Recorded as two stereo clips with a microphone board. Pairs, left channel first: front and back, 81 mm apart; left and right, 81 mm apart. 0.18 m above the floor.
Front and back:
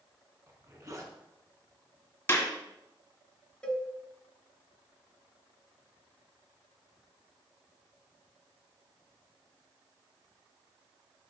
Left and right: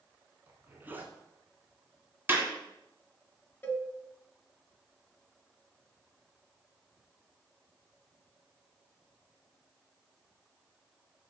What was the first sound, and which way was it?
A zipper, 150° right.